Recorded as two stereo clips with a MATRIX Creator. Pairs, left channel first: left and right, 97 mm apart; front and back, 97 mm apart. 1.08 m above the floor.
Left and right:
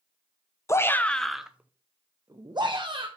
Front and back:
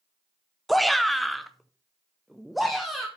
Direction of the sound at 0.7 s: 90° left.